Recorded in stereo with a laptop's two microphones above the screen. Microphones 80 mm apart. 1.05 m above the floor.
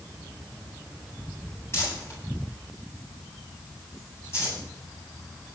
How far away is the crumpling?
About 9.5 m.